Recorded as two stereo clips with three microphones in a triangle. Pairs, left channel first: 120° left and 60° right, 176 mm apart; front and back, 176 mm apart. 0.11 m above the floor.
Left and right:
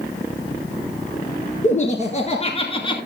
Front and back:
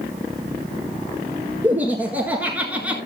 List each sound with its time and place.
1.6 s laughter: 105° left, 2 m